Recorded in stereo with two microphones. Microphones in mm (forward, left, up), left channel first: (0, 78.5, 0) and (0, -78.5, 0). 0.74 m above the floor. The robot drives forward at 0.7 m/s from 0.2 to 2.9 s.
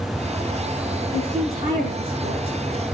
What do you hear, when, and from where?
1.1 s a woman speaking: 45° right (ahead or behind), 8.5 m; by 2.5 s 40° right (ahead or behind), 9 m